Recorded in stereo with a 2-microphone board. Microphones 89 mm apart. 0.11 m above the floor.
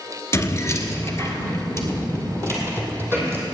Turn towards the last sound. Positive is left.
turn(degrees=25)  # may be behind; listen again after turning